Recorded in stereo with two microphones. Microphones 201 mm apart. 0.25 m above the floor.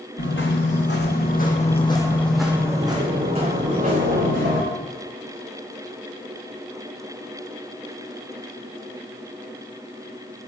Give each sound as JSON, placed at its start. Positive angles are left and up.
{"t": 0.2, "sound": "footsteps", "side_deg": 75, "distance_m": 1.4}